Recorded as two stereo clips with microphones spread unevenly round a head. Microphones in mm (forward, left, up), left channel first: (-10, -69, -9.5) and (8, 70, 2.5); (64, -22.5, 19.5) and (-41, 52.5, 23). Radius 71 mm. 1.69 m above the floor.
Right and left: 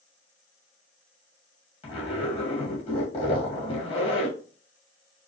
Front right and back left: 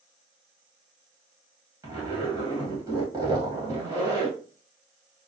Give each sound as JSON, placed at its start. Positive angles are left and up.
{"t": 1.8, "sound": "a zipper", "azimuth_deg": -150, "distance_m": 2.0}